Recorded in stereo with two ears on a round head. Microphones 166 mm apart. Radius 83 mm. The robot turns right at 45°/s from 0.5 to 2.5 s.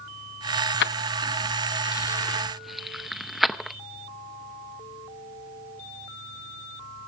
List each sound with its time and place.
0.8 s keys jangling: 60° left (ahead or behind), 0.6 m; by 3.8 s centre (ahead or behind), 0.6 m